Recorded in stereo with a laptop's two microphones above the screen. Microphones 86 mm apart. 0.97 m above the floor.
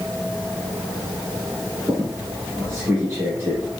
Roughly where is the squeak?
Right.